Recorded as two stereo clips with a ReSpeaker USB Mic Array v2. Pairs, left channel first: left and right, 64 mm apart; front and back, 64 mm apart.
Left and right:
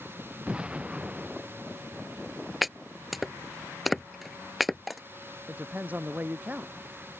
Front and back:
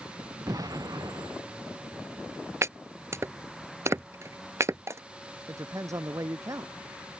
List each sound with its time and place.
0.5 s an explosion: 165° right
2.6 s chopping: straight behind
5.5 s a woman speaking: 155° right